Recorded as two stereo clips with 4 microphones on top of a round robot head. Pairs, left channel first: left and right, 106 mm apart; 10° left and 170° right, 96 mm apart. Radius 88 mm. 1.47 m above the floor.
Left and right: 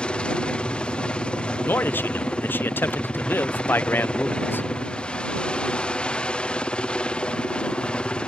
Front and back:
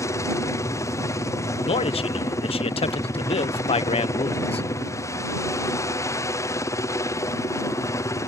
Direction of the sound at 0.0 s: 20° left.